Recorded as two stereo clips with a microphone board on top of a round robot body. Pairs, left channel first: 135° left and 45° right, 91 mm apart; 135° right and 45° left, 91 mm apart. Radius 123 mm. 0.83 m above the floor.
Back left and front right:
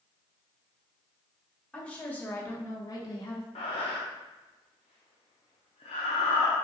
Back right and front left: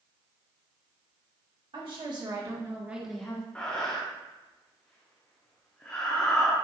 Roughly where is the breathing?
Behind left.